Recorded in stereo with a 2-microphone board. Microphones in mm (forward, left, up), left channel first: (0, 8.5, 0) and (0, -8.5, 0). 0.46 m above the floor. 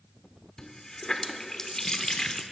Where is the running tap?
40° left (ahead or behind), 0.5 m.